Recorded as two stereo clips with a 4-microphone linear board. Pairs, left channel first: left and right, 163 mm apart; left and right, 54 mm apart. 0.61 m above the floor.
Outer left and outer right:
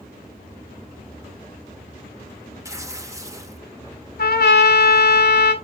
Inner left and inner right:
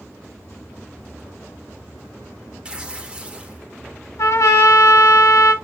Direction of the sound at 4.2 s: 75° left (ahead or behind).